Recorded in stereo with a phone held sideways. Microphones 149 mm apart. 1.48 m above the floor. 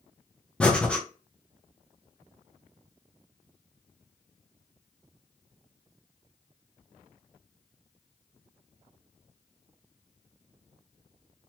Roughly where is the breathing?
Centre.